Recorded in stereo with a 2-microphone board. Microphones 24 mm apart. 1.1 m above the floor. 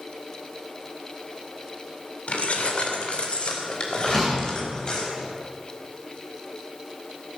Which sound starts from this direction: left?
Keys jangling, at 2.3 s.